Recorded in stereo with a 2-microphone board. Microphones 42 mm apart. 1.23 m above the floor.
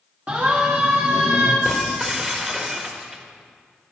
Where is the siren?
35° right (ahead or behind), 2.5 m; by 1.6 s 45° right (ahead or behind), 2.0 m.